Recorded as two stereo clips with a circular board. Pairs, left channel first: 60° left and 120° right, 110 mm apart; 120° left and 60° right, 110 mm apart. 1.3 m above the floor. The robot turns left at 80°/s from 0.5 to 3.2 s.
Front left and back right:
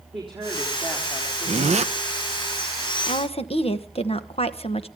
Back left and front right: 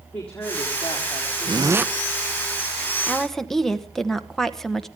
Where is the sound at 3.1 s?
45° left, 1.2 m; by 4.9 s 35° left, 1.2 m.